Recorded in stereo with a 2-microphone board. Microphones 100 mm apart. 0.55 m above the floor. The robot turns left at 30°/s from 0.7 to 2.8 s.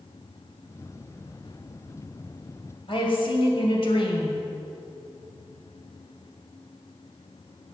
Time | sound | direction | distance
2.9 | a woman speaking | 65° left (ahead or behind) | 2.5 m